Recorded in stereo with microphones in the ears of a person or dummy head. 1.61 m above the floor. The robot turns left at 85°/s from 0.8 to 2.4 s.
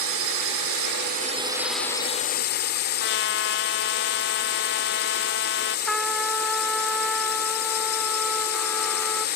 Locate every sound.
0.0 s a drone: 95° right; by 9.4 s 130° left
3.0 s a trumpet: 60° left (ahead or behind)
5.9 s a trumpet: centre (ahead or behind)